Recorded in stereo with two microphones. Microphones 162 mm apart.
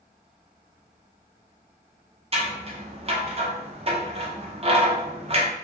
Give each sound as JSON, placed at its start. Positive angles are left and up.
{"t": 2.3, "sound": "scissors", "side_deg": -40, "distance_m": 0.6}